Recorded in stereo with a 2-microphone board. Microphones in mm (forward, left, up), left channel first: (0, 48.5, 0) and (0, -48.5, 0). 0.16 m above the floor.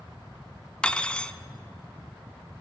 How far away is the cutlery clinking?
About 0.9 m.